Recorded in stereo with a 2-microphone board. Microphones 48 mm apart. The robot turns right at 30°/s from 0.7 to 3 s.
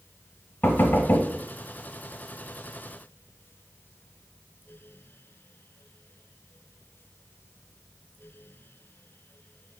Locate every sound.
0.6 s knocking: 50° left (ahead or behind), 1.2 m; by 1.3 s 40° left (ahead or behind), 1.2 m